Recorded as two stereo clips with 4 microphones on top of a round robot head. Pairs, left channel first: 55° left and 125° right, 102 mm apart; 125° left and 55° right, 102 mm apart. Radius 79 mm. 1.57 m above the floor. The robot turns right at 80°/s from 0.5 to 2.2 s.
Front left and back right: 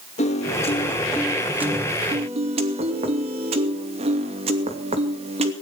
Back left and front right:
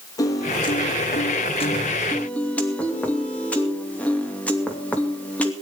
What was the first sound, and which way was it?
A piano, 70° left.